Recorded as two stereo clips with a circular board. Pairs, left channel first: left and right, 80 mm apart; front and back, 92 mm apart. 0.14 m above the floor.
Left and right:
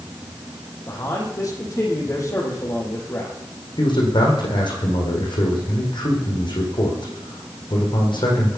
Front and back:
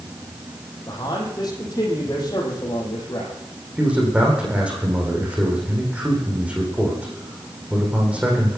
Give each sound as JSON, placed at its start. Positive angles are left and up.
{"t": 0.9, "sound": "a man speaking", "azimuth_deg": 45, "distance_m": 7.0}
{"t": 3.8, "sound": "a man speaking", "azimuth_deg": 105, "distance_m": 8.5}